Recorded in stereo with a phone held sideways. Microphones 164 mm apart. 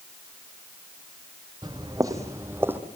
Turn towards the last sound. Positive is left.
turn(degrees=-10)  # may be behind; listen again after turning